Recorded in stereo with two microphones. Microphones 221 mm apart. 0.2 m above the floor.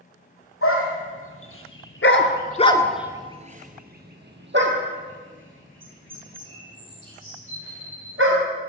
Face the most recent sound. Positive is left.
turn(degrees=-70)  # may be behind; listen again after turning